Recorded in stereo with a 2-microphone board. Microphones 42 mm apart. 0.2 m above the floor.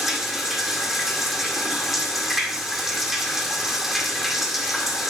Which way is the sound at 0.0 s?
5° right (ahead or behind).